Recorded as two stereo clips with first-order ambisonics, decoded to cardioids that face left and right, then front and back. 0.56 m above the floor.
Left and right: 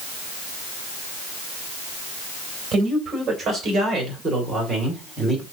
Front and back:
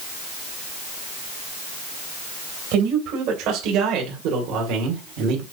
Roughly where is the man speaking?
Behind right.